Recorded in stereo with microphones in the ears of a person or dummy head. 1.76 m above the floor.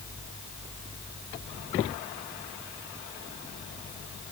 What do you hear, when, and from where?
Only background noise.